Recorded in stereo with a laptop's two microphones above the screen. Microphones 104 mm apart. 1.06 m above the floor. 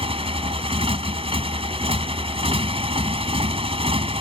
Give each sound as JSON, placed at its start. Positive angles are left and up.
{"t": 0.0, "sound": "a motorcycle", "side_deg": -70}